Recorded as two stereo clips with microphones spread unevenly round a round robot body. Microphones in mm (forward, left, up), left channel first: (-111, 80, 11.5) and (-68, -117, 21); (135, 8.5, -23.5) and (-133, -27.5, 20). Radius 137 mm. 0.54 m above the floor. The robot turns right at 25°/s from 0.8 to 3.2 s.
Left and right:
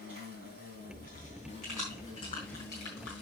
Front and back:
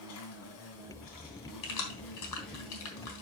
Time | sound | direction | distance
0.0 | an insect | 25° right | 2.5 m
1.6 | keys jangling | 15° left | 4 m